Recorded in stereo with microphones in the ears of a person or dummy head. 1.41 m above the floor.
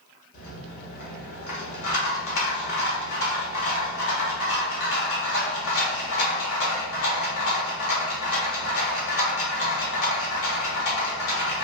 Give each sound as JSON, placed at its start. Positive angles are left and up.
{"t": 0.3, "sound": "a rattle", "side_deg": 75, "distance_m": 1.5}